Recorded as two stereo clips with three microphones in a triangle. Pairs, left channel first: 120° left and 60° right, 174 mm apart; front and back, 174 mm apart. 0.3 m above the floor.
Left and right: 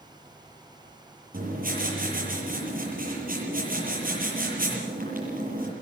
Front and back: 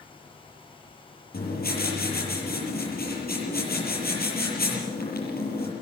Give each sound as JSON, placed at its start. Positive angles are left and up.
{"t": 1.3, "sound": "writing", "azimuth_deg": -25, "distance_m": 7.0}